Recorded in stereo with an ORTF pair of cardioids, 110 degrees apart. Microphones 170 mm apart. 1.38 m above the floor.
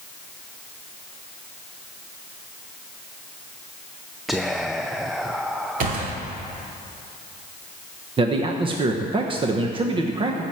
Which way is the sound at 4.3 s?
Straight ahead.